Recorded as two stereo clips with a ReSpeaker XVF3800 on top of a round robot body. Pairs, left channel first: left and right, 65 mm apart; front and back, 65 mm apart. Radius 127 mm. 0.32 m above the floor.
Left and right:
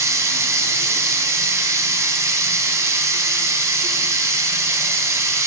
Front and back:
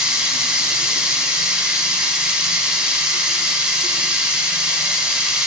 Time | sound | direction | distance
0.0 | running water | 105° right | 1.5 m